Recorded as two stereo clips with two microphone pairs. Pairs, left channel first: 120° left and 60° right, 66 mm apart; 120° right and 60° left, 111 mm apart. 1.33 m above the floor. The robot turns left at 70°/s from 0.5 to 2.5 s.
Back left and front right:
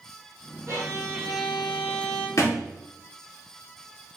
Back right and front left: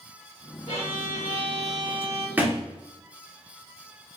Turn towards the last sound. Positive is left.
turn(degrees=120)